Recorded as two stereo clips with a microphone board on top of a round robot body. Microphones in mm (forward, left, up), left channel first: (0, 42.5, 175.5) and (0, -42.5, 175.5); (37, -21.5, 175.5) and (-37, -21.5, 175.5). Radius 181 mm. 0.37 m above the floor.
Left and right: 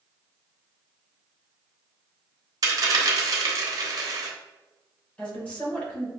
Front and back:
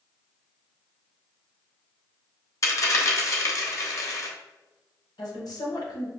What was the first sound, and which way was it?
A dropped coin, 45° right.